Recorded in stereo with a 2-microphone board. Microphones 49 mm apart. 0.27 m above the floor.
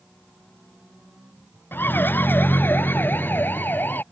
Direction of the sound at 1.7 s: 45° left (ahead or behind).